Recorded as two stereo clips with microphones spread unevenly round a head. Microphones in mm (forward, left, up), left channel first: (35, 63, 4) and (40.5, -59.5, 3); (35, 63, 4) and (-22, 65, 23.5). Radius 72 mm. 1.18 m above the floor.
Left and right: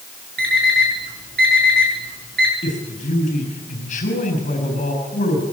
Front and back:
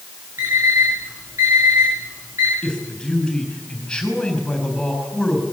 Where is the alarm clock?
110° right, 8.5 m.